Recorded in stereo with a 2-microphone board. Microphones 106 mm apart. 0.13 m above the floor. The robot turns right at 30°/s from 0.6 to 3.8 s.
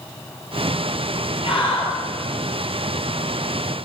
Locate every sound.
1.4 s a scream: 60° left (ahead or behind), 4 m; by 1.9 s 50° left (ahead or behind), 4 m